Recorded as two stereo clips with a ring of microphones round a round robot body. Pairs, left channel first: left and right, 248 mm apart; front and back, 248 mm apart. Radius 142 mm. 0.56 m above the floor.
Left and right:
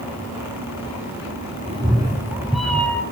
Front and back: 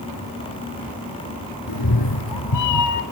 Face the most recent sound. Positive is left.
turn(degrees=10)